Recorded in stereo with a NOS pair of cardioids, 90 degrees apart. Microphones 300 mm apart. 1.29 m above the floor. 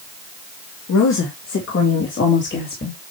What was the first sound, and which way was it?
A woman speaking, 65° left.